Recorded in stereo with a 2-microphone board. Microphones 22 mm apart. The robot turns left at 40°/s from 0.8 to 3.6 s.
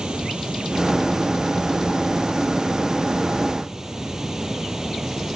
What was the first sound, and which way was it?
Running water, 40° right.